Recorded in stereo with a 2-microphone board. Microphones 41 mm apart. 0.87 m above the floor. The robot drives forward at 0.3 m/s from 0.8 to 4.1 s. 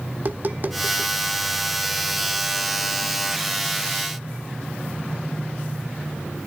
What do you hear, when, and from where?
0.1 s tapping: 45° right (ahead or behind), 0.9 m; by 1.1 s 50° right (ahead or behind), 0.8 m